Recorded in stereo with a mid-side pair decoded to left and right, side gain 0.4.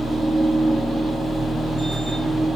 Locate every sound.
0.0 s a machine running: 10° right, 1.2 m